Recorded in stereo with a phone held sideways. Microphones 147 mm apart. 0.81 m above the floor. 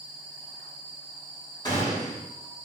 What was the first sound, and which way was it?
A gunshot, 30° left (ahead or behind).